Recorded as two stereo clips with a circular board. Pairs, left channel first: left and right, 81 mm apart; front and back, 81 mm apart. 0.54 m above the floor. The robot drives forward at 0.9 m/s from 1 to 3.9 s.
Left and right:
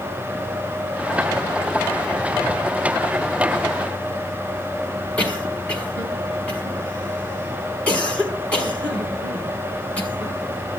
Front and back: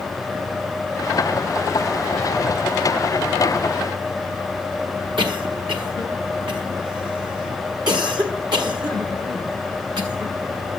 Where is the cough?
165° left, 6.5 m.